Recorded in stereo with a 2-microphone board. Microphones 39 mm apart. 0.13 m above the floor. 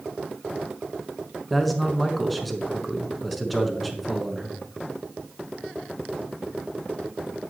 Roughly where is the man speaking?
Centre.